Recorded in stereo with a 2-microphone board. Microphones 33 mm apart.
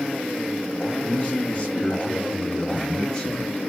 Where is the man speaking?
40° left (ahead or behind), 1.7 m; by 3.6 s 30° left (ahead or behind), 1.8 m.